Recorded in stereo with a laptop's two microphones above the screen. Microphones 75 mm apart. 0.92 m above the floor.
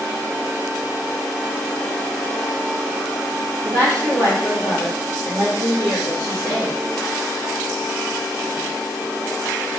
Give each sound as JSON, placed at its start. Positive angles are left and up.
{"t": 3.6, "sound": "a woman speaking", "side_deg": -40, "distance_m": 1.7}